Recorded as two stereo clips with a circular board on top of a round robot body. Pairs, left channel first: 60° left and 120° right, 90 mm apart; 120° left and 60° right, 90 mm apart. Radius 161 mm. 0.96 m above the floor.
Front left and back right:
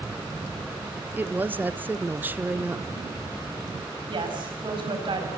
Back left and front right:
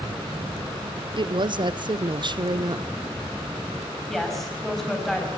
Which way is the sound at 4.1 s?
155° right.